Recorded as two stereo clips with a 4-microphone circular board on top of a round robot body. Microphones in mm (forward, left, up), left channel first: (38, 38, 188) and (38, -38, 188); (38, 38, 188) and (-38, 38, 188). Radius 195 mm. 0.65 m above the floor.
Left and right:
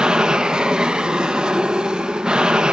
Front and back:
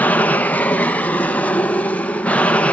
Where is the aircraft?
25° right; by 2.7 s 30° right.